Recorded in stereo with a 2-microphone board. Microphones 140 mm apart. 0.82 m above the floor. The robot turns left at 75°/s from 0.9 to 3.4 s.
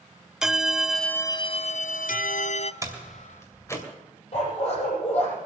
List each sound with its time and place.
0.4 s a bell: 175° right, 0.5 m; by 2.7 s 50° left, 0.5 m
2.8 s a door slam: 25° right (ahead or behind), 2.5 m; by 3.9 s 20° left (ahead or behind), 2.5 m
4.3 s a dog barking: 45° left (ahead or behind), 7.5 m